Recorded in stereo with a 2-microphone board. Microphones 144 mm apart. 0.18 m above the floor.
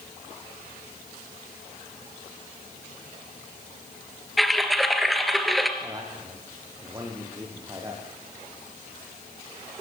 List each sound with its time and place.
4.4 s typing on a keyboard: centre (ahead or behind), 2 m
5.8 s a man speaking: 25° right (ahead or behind), 7 m